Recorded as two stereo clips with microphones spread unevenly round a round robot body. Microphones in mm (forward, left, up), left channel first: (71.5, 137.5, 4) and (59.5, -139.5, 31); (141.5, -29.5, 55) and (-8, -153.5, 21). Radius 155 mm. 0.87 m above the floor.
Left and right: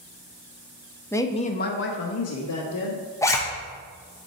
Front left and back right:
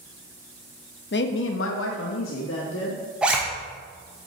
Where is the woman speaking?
10° left, 0.8 m; by 3.0 s 80° left, 1.5 m.